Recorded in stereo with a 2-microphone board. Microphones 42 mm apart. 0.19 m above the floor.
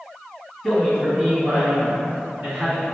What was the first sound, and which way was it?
A man speaking, centre (ahead or behind).